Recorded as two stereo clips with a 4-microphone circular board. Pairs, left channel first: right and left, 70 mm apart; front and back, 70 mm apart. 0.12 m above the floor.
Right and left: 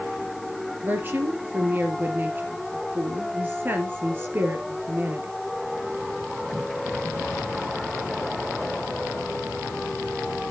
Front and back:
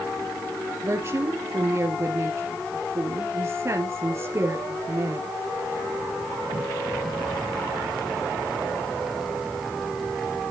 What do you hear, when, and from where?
0.8 s a woman speaking: 145° left, 2.5 m